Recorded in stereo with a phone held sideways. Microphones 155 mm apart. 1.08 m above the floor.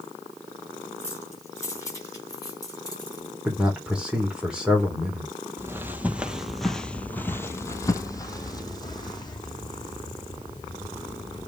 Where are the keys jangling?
15° left (ahead or behind), 5 m; by 3.3 s 30° left (ahead or behind), 6 m.